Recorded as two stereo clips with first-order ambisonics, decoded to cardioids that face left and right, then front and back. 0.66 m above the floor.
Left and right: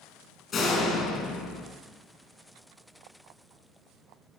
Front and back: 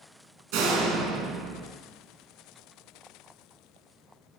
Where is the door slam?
150° left, 4 m.